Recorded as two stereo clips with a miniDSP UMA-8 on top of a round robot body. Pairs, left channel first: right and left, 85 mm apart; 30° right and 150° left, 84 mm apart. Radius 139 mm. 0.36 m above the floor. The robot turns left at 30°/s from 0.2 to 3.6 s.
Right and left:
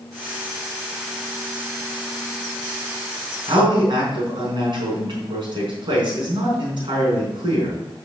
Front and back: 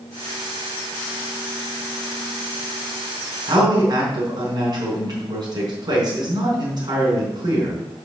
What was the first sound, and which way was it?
A man speaking, 115° left.